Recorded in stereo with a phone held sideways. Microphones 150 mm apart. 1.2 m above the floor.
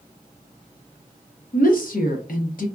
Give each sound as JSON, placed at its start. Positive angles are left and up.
{"t": 1.5, "sound": "a woman speaking", "side_deg": 70, "distance_m": 0.8}